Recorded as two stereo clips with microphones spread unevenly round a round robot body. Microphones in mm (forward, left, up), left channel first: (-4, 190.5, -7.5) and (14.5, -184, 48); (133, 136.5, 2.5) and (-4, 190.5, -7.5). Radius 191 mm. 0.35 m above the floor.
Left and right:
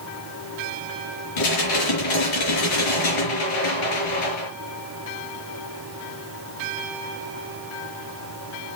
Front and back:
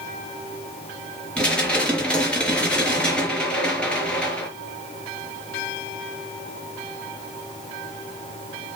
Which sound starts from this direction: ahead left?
Dishes clattering, at 1.4 s.